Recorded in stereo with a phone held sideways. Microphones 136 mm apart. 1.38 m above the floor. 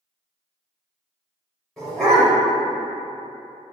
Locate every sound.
1.8 s a dog barking: centre (ahead or behind), 1.8 m